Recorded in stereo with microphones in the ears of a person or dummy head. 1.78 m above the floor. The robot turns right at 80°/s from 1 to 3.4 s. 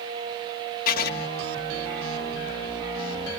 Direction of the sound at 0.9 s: 55° left (ahead or behind).